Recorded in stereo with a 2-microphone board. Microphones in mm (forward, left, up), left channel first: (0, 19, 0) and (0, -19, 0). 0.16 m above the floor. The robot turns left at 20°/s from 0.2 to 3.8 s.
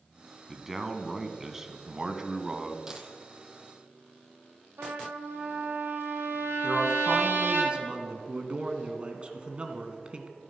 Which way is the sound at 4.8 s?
80° right.